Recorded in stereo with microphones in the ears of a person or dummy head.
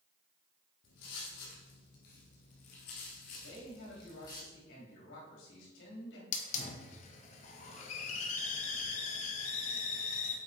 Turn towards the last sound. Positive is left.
turn(degrees=40)  # may be behind; listen again after turning